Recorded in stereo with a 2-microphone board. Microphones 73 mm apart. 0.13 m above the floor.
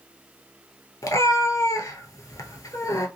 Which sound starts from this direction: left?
A cat meowing, at 1.0 s.